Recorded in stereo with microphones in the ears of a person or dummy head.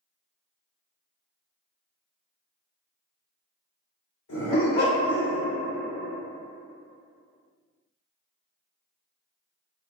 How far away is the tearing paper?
I don't hear tearing paper.